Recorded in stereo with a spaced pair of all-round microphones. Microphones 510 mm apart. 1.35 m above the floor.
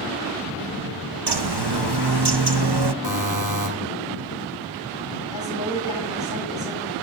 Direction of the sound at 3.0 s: 65° right (ahead or behind).